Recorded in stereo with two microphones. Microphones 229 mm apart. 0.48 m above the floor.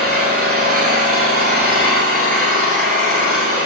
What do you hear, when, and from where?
0.0 s an engine running: 85° right, 6.5 m